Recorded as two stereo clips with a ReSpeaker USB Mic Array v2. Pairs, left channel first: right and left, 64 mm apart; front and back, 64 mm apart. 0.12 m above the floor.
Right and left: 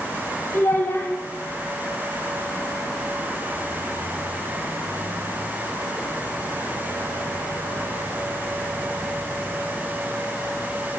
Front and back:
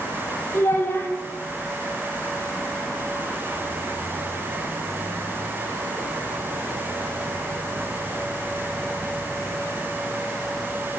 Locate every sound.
0.5 s a child speaking: 45° right, 2.5 m